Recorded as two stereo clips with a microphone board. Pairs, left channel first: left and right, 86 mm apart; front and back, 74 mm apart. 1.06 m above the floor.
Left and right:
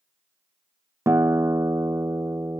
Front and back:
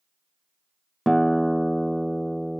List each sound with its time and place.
1.1 s a guitar: 90° right